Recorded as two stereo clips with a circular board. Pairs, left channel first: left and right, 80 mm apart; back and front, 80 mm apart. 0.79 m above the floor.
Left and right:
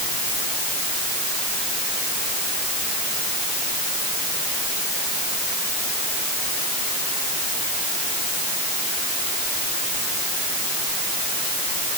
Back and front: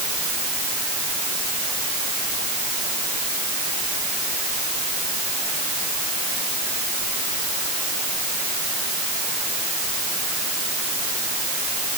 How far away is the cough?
I don't hear a cough.